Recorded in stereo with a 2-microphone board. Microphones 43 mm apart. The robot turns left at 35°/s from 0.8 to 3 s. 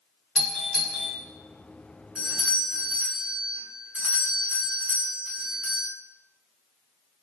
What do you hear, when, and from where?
0.3 s a doorbell: 10° left (ahead or behind), 1.5 m; by 1.1 s 5° left (ahead or behind), 1.5 m
2.1 s a doorbell: 25° right (ahead or behind), 2 m; by 5.9 s 40° right (ahead or behind), 2 m